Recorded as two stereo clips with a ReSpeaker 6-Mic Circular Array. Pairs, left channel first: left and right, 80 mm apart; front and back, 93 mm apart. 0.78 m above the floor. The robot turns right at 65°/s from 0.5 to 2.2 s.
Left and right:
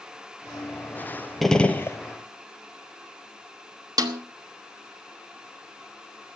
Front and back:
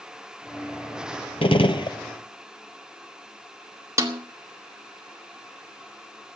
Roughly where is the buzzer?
I don't hear a buzzer.